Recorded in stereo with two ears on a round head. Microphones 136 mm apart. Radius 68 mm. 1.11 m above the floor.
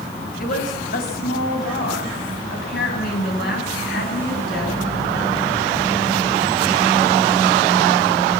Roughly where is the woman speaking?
Left.